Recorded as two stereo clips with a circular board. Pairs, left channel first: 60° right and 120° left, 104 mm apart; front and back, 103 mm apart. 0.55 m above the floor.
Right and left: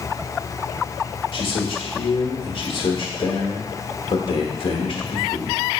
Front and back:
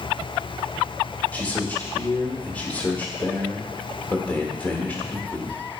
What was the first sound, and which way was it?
A man speaking, 70° right.